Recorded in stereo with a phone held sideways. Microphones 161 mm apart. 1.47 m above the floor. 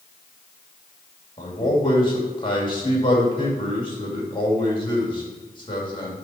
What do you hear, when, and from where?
1.4 s a man speaking: 30° left (ahead or behind), 2.5 m